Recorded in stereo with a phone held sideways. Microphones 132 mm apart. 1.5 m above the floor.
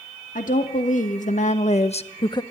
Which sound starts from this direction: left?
A woman speaking, at 0.3 s.